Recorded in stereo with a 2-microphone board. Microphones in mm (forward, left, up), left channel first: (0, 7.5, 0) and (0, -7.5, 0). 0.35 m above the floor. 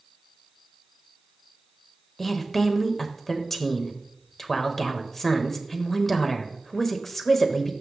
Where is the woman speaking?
20° left (ahead or behind), 1.1 m.